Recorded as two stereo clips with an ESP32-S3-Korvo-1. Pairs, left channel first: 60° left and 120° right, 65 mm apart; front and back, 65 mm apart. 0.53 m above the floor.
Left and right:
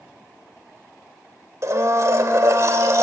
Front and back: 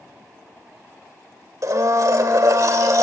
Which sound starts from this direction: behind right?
A blender, at 1.6 s.